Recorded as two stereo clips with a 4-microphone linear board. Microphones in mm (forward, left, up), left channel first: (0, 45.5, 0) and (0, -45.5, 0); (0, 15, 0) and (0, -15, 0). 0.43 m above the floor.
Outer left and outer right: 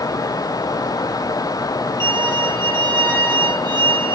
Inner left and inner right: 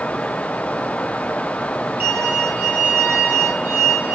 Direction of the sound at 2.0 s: 55° right (ahead or behind).